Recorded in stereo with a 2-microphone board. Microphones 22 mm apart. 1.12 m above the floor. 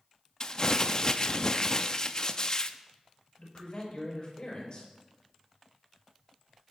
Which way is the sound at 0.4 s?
30° left (ahead or behind).